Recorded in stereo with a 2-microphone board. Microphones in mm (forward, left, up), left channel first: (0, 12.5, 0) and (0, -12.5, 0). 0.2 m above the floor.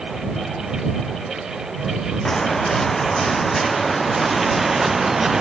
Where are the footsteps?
15° left (ahead or behind); by 5.4 s 20° right (ahead or behind).